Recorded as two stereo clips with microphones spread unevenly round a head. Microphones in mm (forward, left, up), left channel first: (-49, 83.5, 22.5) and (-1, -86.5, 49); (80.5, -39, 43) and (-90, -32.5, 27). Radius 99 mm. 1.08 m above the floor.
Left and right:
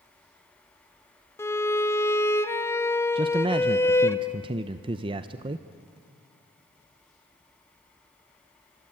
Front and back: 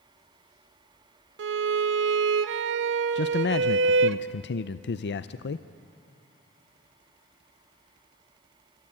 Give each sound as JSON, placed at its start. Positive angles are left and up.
{"t": 1.4, "sound": "a violin", "azimuth_deg": -175, "distance_m": 1.0}
{"t": 3.1, "sound": "a man speaking", "azimuth_deg": -10, "distance_m": 0.6}